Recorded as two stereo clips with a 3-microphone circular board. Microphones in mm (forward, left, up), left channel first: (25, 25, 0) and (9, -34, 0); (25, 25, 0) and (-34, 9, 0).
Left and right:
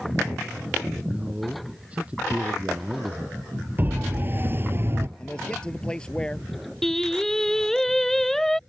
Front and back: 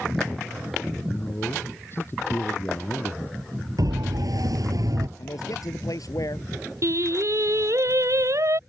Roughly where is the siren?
Behind.